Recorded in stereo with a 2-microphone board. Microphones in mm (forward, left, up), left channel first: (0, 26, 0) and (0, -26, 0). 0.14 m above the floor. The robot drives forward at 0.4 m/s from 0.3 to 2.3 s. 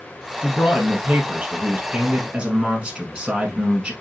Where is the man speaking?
15° right (ahead or behind), 1.6 m; by 3.9 s 20° right (ahead or behind), 1.3 m.